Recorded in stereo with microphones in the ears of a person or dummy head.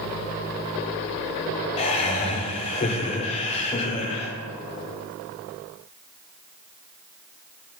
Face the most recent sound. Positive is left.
turn(degrees=35)  # may be behind; listen again after turning